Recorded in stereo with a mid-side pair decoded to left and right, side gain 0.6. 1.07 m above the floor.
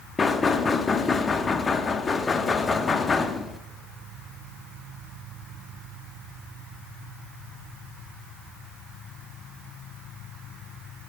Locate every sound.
0.2 s knocking: 30° left, 1.2 m